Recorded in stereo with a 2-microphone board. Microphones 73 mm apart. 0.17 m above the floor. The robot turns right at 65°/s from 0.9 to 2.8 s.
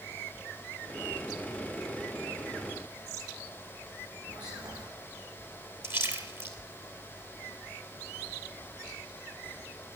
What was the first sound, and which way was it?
Whispering, 75° right (ahead or behind).